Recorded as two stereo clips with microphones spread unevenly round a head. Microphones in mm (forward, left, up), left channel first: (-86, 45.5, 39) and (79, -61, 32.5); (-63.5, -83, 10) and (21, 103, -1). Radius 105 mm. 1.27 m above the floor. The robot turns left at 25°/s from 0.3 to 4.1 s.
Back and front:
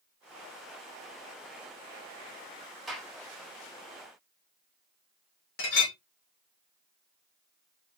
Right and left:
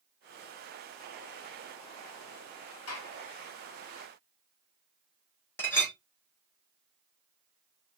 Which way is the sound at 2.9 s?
120° right.